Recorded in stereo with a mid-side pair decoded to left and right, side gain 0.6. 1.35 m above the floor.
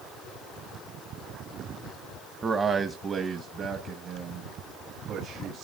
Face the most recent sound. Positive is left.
turn(degrees=-55)